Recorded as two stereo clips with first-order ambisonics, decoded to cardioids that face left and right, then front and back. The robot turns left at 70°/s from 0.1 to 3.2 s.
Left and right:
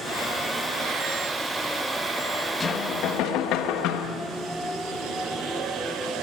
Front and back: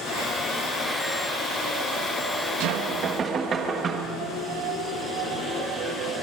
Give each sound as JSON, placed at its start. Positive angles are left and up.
{"t": 2.6, "sound": "knocking", "azimuth_deg": 160, "distance_m": 1.3}